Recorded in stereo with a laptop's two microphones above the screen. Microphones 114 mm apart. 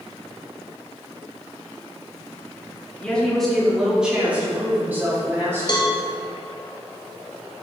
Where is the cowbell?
40° left (ahead or behind), 0.9 m.